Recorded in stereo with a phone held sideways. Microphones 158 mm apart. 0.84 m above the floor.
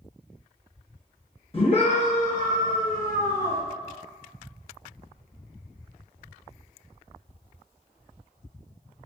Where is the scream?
35° left (ahead or behind), 1.1 m; by 3.6 s 45° left (ahead or behind), 1.0 m.